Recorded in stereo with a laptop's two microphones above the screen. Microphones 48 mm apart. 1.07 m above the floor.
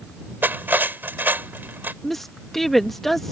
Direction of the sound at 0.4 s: 45° right (ahead or behind).